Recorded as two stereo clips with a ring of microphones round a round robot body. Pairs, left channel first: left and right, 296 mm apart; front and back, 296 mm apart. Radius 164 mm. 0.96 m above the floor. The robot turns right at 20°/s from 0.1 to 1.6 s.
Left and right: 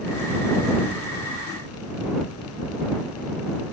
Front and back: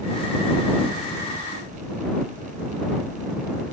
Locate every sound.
Only background noise.